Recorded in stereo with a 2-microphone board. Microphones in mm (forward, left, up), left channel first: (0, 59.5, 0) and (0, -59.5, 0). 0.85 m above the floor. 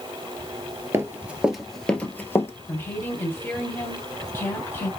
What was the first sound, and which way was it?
Running footsteps, 25° right (ahead or behind).